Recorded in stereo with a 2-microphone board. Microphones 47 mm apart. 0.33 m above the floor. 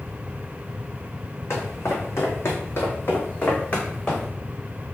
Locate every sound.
1.5 s footsteps: 70° left (ahead or behind), 1.1 m; by 4.3 s 15° left (ahead or behind), 1.3 m